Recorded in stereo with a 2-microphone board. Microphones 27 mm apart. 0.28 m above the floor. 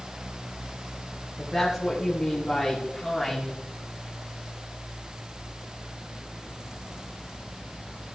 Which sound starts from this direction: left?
A woman speaking, at 1.4 s.